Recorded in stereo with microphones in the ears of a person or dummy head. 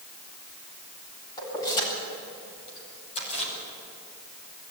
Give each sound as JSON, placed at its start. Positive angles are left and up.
{"t": 1.4, "sound": "keys jangling", "side_deg": 20, "distance_m": 7.5}